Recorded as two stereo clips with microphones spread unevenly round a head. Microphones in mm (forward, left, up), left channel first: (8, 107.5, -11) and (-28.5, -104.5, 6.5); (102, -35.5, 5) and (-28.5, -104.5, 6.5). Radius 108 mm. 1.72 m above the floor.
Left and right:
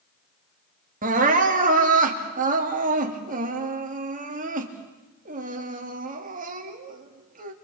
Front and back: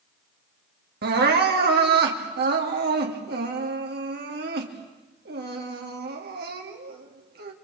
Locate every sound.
1.0 s crying: 155° right, 3 m